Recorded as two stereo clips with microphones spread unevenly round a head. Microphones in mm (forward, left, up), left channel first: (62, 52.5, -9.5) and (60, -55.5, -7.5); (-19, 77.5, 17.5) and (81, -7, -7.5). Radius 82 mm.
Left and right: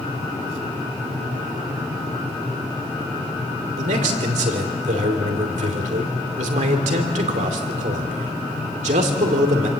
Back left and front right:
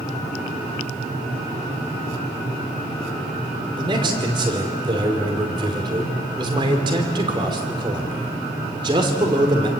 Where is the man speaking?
105° right, 2.5 m.